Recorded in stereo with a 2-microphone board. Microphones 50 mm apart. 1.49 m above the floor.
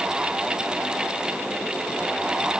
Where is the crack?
I don't hear a crack.